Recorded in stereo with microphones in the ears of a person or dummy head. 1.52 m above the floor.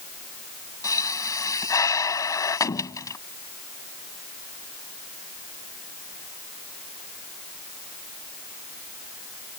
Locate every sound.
0.8 s a pop: 15° left (ahead or behind)